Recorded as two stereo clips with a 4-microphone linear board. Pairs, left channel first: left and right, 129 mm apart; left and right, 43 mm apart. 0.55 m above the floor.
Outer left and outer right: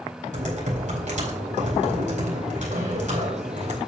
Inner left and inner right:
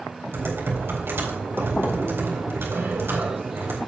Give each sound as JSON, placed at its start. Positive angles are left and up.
{"t": 0.3, "sound": "typing on a keyboard", "side_deg": -75, "distance_m": 4.0}